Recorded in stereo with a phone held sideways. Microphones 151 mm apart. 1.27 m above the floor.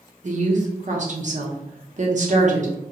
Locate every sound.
0.2 s a woman speaking: 55° right (ahead or behind), 0.7 m